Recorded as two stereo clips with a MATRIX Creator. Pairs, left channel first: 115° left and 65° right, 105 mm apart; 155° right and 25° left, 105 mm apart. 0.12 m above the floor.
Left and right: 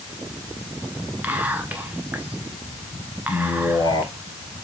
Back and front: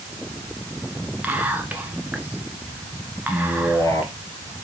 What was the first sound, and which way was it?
Whispering, 25° right.